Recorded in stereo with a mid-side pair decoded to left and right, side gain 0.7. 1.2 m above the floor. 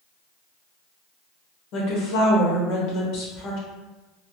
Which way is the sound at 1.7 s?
65° left.